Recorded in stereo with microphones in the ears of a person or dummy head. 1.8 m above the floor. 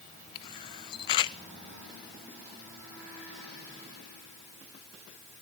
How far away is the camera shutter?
About 0.7 m.